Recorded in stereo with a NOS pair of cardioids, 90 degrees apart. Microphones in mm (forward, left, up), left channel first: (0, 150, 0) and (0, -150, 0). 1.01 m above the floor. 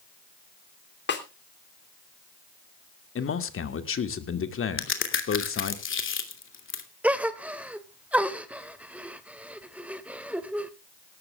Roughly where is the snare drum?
Ahead left.